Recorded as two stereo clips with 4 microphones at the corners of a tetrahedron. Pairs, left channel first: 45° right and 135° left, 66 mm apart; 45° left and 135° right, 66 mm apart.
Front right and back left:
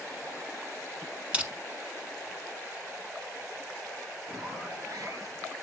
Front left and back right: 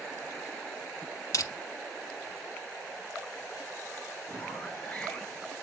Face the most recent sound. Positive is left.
turn(degrees=120)